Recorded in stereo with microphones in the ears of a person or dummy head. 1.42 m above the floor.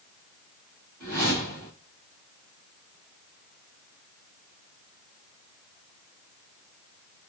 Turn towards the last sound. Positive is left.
turn(degrees=-20)  # may be behind; listen again after turning